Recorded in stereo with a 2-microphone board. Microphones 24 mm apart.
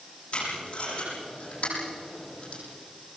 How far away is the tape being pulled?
About 9 m.